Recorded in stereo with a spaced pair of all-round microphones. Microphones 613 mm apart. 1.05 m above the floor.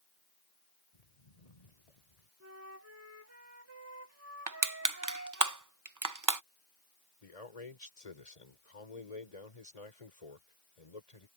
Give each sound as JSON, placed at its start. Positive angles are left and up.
{"t": 0.9, "sound": "footsteps", "side_deg": 85}
{"t": 2.4, "sound": "a flute", "side_deg": -25}
{"t": 4.5, "sound": "crushing", "side_deg": -30}
{"t": 7.2, "sound": "a man speaking", "side_deg": 70}